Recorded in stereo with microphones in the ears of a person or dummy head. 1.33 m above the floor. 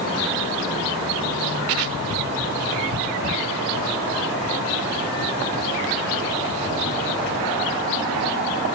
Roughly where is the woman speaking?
No woman speaking in this recording.